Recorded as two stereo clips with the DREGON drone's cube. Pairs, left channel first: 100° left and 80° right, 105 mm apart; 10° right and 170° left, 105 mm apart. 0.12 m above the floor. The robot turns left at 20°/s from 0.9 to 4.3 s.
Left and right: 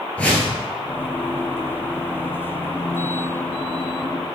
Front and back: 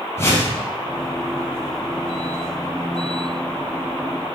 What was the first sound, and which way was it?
A whoosh, 30° left.